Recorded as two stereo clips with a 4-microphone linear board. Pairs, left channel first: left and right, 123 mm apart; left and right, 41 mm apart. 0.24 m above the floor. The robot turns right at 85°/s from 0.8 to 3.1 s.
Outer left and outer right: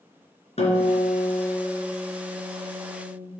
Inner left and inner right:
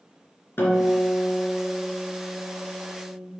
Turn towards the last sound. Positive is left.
turn(degrees=-95)